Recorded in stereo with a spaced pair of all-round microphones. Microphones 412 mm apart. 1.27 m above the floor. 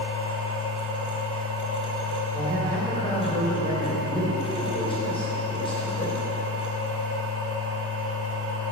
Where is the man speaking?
10° left (ahead or behind), 3.5 m.